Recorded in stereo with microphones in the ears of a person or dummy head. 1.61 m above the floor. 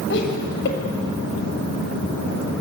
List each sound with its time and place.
0.1 s laughter: 60° left (ahead or behind), 7.5 m